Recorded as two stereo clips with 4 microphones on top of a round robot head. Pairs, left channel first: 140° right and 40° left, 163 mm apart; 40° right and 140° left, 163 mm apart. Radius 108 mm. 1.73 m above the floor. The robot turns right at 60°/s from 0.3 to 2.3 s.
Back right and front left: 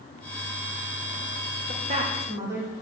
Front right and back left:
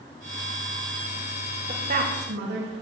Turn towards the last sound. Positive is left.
turn(degrees=115)